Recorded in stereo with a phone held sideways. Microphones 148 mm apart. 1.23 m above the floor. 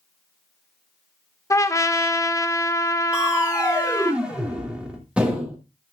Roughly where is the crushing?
Centre.